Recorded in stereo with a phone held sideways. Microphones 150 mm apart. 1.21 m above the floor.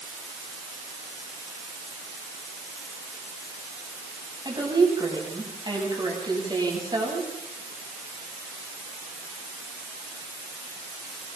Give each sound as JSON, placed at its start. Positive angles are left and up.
{"t": 4.5, "sound": "a woman speaking", "side_deg": -30, "distance_m": 10.0}